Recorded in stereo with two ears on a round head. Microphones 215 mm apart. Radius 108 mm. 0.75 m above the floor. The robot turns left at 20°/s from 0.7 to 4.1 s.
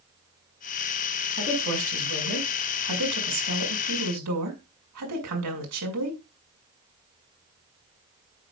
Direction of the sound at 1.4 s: 50° right.